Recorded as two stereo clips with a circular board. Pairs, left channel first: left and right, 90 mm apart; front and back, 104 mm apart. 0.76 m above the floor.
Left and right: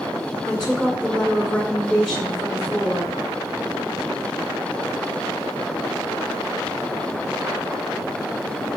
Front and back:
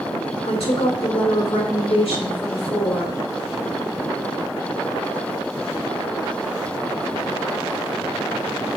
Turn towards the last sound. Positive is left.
turn(degrees=-15)